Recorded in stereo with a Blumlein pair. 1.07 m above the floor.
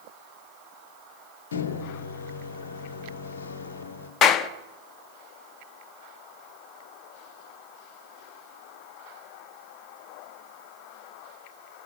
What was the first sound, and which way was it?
A microwave, 65° left.